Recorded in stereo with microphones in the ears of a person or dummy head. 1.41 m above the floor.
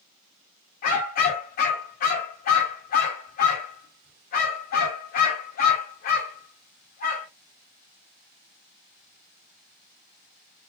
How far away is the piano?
I don't hear a piano.